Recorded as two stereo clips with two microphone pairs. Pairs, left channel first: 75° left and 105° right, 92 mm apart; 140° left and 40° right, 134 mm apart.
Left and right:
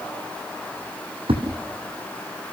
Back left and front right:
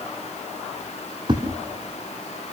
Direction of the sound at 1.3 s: 95° right.